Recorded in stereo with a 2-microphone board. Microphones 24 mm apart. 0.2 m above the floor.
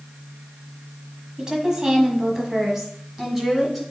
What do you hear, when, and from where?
1.4 s a woman speaking: 30° right (ahead or behind), 1.3 m; by 3.8 s centre (ahead or behind), 1.6 m